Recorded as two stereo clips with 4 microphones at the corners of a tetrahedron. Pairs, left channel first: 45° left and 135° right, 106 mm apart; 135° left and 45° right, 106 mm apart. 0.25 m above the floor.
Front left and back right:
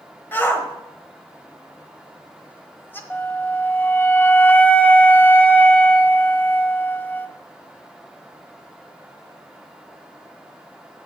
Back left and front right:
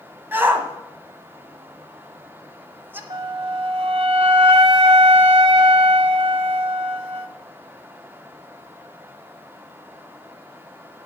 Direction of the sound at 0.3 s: Straight ahead.